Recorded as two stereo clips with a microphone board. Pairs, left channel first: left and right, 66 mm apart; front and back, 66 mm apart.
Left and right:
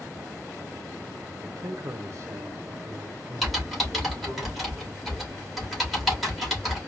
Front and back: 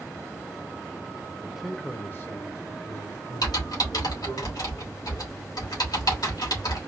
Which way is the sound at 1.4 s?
115° right.